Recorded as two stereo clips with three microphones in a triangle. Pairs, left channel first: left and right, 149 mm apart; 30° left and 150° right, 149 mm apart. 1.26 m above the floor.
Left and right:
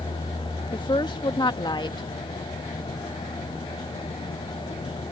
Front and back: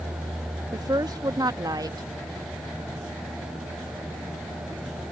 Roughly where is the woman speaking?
Behind left.